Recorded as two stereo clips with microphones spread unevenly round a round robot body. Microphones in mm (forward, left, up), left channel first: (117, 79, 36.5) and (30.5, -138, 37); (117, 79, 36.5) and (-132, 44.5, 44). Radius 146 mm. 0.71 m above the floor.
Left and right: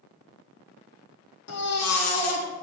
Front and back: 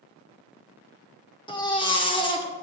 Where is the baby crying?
80° left, 1.8 m.